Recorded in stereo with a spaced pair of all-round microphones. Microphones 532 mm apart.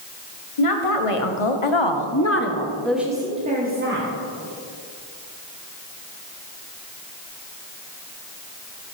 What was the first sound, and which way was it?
A woman speaking, 75° left (ahead or behind).